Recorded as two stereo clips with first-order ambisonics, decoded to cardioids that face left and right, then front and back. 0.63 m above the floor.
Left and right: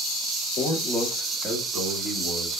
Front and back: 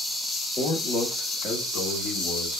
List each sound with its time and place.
0.6 s a man speaking: 55° left, 0.8 m; by 2.6 s 35° right, 1.7 m